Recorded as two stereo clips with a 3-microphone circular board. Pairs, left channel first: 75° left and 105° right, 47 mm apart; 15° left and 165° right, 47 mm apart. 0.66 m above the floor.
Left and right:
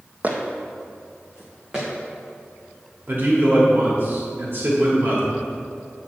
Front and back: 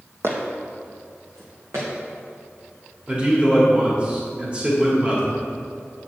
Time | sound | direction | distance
0.2 | footsteps | 150° right | 1.4 m
3.1 | a man speaking | 110° right | 1.7 m